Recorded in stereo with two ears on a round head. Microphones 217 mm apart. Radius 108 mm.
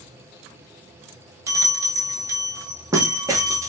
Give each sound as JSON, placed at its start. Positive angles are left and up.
{"t": 1.5, "sound": "a bell", "side_deg": -15, "distance_m": 0.6}